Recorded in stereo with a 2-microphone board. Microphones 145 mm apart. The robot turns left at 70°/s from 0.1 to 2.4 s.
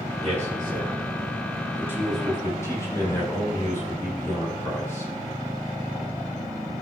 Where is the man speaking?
45° right (ahead or behind), 5 m; by 5.1 s 20° left (ahead or behind), 5 m.